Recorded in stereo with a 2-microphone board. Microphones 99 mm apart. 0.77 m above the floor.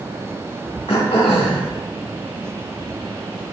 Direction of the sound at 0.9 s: 75° left (ahead or behind).